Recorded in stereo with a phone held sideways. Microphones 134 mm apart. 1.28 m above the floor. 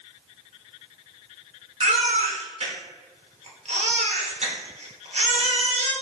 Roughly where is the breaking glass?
No breaking glass in this recording.